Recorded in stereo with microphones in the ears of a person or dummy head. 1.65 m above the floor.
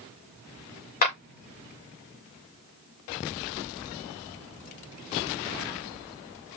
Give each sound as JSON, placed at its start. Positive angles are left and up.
{"t": 1.0, "sound": "a clap", "side_deg": 45, "distance_m": 5.0}